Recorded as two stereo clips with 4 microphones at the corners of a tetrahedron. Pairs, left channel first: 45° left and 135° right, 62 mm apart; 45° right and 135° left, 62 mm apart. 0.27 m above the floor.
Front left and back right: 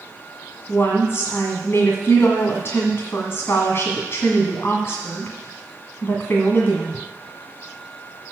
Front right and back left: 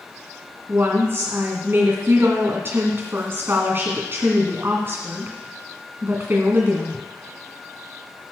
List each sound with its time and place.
0.7 s a woman speaking: 90° left, 1.9 m